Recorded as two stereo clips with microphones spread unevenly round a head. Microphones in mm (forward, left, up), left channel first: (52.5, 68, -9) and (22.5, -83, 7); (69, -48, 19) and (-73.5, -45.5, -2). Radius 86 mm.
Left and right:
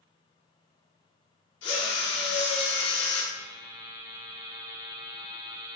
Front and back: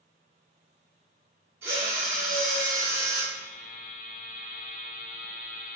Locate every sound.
1.6 s a drill: 100° left, 1.8 m
3.3 s a buzzer: 35° right, 1.0 m